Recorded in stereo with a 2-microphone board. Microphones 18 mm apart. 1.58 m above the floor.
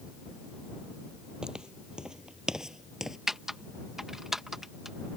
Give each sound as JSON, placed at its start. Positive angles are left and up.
{"t": 1.4, "sound": "footsteps", "side_deg": -50}
{"t": 3.3, "sound": "typing on a keyboard", "side_deg": -25}